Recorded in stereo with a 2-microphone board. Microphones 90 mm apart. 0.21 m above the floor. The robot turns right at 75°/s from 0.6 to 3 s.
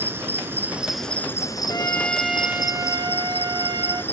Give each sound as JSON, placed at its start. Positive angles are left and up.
{"t": 0.0, "sound": "an insect", "azimuth_deg": -25, "distance_m": 1.5}
{"t": 1.7, "sound": "a trumpet", "azimuth_deg": 135, "distance_m": 1.1}